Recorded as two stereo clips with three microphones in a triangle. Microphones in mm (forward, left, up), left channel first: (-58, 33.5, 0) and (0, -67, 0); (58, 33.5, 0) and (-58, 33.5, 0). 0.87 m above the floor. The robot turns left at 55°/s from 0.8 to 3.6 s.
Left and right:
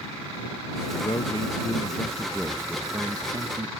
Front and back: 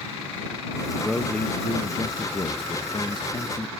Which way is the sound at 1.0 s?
95° left.